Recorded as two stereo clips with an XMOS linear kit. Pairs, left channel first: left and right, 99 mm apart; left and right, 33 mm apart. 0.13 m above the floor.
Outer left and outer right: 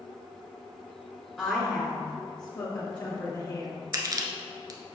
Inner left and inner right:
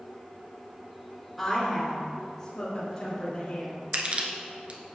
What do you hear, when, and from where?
1.4 s a woman speaking: 10° left (ahead or behind), 1.9 m; by 3.7 s 50° left (ahead or behind), 3.5 m
3.9 s crushing: 40° right (ahead or behind), 1.0 m